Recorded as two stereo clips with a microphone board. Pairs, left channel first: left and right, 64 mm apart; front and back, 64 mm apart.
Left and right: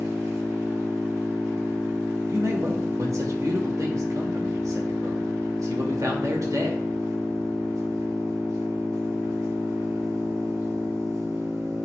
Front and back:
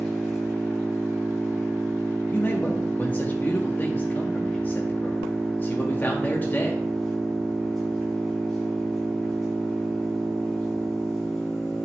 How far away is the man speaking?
About 1.7 m.